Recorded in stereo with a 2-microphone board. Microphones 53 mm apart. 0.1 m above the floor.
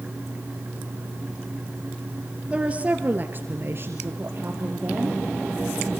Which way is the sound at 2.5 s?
20° right (ahead or behind).